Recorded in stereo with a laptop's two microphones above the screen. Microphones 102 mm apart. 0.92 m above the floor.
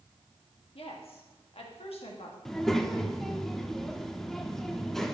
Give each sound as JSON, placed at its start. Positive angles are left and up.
{"t": 0.8, "sound": "a woman speaking", "side_deg": 70, "distance_m": 1.4}
{"t": 2.5, "sound": "a child speaking", "side_deg": 5, "distance_m": 0.9}